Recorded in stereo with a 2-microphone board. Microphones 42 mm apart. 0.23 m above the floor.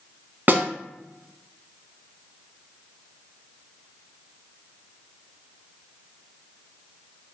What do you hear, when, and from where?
0.5 s a snare drum: 45° right (ahead or behind), 0.6 m